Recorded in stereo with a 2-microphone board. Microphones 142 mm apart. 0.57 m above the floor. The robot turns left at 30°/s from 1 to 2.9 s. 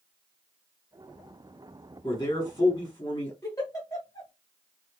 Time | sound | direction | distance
2.0 | a man speaking | 30° left (ahead or behind) | 1.4 m
3.4 | a giggle | 25° left (ahead or behind) | 1.4 m